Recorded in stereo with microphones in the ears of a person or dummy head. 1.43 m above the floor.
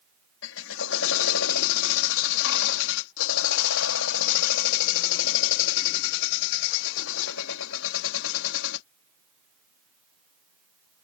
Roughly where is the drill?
Left.